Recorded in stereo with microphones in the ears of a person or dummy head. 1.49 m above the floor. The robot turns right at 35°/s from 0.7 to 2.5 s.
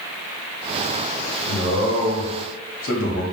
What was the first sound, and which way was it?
A man speaking, 75° left.